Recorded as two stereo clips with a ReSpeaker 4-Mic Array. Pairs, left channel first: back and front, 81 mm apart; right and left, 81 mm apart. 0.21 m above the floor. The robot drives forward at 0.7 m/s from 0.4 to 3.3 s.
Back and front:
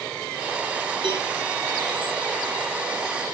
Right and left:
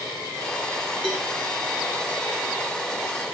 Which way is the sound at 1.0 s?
5° left.